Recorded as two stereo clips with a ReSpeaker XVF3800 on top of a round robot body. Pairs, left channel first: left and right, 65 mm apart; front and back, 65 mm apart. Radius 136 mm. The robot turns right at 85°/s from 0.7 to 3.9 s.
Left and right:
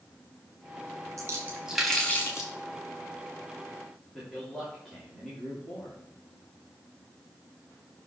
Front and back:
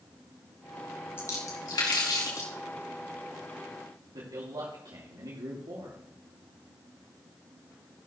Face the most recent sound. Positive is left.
turn(degrees=180)